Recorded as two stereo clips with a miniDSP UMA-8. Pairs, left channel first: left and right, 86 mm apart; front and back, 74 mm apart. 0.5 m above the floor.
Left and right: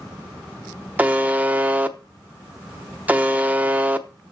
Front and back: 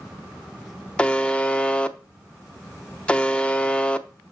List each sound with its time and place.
1.0 s a buzzer: 50° right, 0.8 m